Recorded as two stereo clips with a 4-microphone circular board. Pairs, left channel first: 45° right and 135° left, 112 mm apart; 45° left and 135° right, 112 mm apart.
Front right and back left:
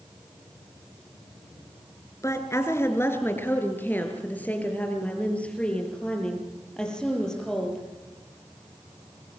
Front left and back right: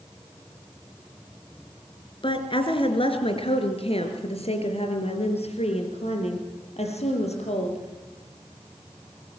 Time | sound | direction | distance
2.2 | a woman speaking | 15° left | 3 m